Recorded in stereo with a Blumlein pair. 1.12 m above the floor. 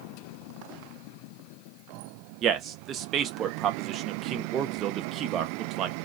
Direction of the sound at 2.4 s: 30° right.